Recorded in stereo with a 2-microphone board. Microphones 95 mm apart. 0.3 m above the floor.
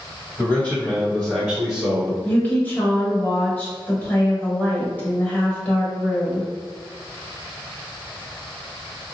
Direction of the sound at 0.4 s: 20° left (ahead or behind).